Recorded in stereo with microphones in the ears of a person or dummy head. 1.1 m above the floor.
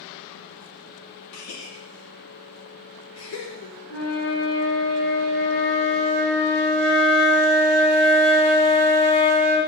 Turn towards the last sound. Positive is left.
turn(degrees=80)